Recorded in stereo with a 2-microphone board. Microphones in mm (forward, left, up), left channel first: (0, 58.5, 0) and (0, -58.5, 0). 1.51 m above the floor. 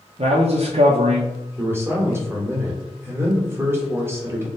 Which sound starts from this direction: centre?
A man speaking, at 1.6 s.